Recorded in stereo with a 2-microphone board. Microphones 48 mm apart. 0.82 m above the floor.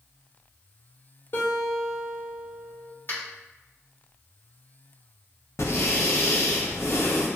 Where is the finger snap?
45° left (ahead or behind), 1.3 m.